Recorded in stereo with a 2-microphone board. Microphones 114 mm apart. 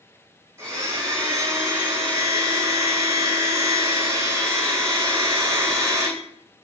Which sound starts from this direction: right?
A blender, at 0.6 s.